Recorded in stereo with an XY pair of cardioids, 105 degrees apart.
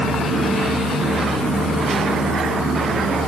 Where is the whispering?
No whispering in this recording.